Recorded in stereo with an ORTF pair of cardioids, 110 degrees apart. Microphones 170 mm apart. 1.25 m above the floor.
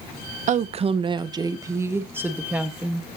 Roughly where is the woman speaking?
Ahead right.